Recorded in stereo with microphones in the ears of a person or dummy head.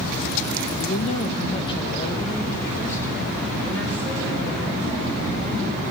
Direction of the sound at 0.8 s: 45° left (ahead or behind).